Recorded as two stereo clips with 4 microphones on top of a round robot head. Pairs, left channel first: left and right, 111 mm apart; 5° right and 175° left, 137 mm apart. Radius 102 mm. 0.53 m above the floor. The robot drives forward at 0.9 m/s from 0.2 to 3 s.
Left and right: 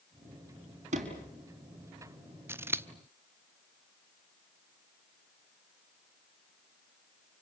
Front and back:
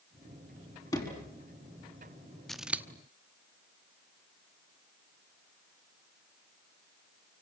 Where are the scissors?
85° right, 1.1 m; by 2.9 s 130° right, 1.1 m.